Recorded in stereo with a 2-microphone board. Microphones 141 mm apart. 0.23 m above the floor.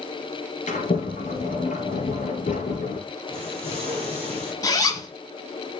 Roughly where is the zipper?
Left.